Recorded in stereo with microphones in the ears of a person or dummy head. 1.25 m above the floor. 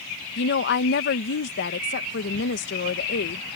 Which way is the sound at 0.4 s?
60° left (ahead or behind).